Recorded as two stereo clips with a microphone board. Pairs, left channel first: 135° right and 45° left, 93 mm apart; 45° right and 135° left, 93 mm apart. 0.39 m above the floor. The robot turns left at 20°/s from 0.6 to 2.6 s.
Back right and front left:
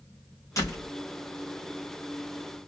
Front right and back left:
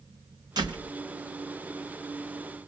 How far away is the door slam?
About 3 m.